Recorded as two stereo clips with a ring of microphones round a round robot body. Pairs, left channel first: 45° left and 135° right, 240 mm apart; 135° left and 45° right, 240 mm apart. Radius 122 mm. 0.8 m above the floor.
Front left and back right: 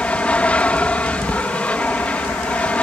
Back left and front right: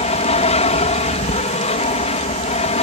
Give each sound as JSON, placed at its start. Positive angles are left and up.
{"t": 0.0, "sound": "an aircraft", "azimuth_deg": 125}